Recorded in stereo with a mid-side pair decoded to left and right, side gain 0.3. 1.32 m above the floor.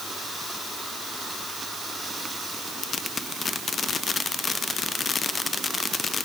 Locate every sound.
Only background noise.